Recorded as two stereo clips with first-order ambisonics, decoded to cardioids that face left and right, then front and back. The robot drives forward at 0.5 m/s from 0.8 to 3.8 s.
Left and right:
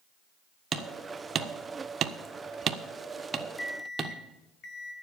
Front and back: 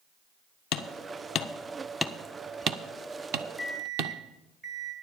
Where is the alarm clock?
110° left, 1.3 m; by 4.9 s 120° left, 1.4 m.